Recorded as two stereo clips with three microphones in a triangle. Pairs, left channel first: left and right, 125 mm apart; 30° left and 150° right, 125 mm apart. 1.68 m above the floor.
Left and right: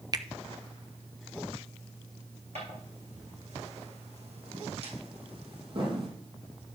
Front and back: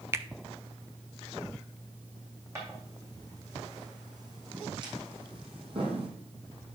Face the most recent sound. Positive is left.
turn(degrees=-130)